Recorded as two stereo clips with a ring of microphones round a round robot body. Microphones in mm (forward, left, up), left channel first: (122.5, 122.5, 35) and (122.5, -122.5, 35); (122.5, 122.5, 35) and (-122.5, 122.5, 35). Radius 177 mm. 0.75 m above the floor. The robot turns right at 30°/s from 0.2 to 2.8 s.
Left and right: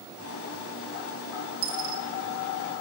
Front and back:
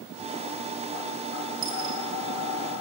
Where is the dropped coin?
135° right, 0.6 m; by 2.0 s 120° right, 0.6 m.